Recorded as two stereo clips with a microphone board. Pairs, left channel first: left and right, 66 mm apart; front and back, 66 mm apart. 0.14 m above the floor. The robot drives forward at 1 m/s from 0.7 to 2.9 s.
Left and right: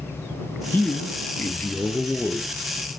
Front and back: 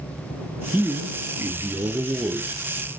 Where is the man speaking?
130° left, 1.5 m; by 2.5 s 160° left, 3 m.